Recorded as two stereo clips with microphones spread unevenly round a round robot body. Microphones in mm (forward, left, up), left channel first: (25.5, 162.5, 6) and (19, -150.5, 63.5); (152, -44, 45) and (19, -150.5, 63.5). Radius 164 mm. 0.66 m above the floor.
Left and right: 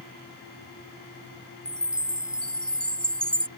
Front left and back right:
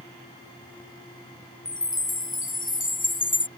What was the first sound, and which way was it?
A chime, straight ahead.